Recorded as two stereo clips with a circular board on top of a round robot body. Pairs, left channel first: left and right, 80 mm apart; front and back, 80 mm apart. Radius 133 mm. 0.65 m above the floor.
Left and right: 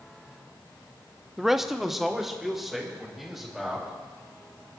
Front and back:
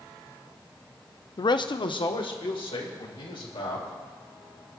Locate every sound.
1.4 s a man speaking: 5° right, 0.7 m